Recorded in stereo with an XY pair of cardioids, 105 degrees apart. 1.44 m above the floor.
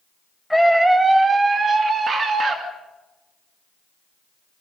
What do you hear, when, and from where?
0.5 s a scream: 5° left, 0.8 m; by 2.6 s 50° right, 2.5 m